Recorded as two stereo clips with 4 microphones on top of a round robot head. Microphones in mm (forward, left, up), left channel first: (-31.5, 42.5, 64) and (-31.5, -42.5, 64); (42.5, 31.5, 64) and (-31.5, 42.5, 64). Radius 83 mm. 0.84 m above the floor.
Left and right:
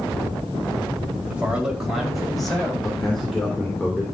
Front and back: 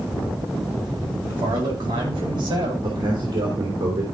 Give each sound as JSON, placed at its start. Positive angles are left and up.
{"t": 1.3, "sound": "a man speaking", "azimuth_deg": -165, "distance_m": 4.5}
{"t": 2.8, "sound": "a man speaking", "azimuth_deg": 175, "distance_m": 3.5}